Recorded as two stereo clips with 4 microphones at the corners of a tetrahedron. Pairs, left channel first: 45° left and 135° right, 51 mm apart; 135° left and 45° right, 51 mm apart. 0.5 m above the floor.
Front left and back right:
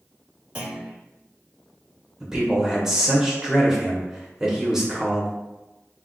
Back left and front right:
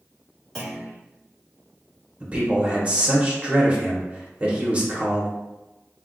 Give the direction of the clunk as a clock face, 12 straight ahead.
6 o'clock.